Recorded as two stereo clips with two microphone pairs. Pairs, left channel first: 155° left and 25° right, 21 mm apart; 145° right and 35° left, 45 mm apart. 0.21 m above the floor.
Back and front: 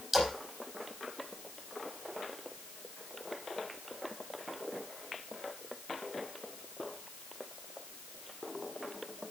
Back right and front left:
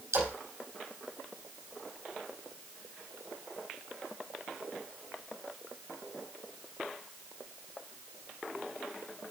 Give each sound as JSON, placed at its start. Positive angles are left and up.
{"t": 0.1, "sound": "a splash", "azimuth_deg": 55, "distance_m": 4.5}